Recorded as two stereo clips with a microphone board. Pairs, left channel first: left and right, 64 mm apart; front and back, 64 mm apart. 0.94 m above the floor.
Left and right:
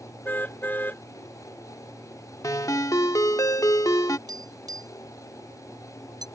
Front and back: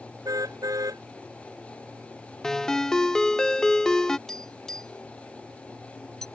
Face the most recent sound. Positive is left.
turn(degrees=-85)